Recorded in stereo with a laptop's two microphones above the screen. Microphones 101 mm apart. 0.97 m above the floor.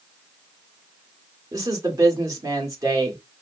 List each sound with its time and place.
1.5 s a woman speaking: 35° right (ahead or behind), 1.6 m